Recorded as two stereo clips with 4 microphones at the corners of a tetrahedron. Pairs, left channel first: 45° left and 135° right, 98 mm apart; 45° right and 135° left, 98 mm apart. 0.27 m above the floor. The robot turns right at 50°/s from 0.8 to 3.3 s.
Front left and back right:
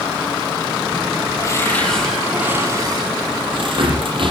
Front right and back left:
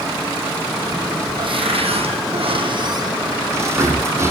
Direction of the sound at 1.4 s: 100° left.